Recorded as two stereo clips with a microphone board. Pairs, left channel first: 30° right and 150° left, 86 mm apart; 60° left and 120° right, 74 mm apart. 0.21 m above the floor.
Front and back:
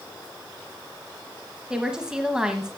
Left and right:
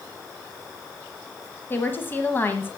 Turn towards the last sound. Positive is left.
turn(degrees=75)